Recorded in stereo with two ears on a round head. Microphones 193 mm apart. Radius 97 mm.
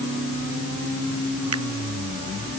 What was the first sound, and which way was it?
A finger snap, 85° right.